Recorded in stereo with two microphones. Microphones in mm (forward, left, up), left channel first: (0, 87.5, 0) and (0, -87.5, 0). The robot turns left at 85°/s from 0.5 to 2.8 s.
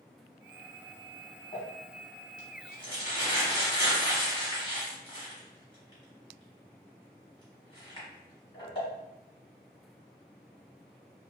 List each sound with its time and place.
1.5 s crumpling: 40° left (ahead or behind), 1.4 m; by 8.9 s 30° left (ahead or behind), 1.4 m